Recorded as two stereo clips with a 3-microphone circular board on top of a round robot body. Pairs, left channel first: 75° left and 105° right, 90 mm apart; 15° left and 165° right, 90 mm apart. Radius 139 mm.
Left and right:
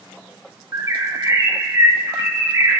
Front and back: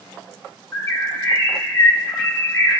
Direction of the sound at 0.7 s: 45° right.